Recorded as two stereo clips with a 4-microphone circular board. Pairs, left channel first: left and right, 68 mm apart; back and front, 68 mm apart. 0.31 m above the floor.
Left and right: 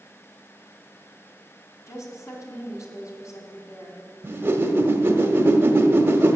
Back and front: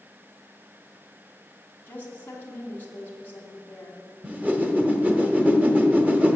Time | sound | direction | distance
1.9 | a woman speaking | 120° left | 2.5 m
4.2 | a whoosh | 50° right | 1.1 m